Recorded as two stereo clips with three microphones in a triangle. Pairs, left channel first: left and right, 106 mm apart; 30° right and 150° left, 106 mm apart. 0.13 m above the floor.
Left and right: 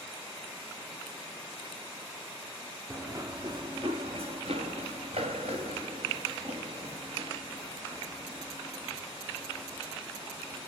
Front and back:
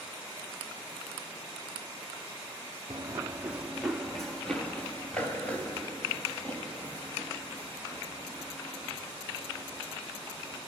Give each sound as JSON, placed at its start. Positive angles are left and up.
{"t": 2.9, "sound": "running footsteps", "azimuth_deg": -160, "distance_m": 0.8}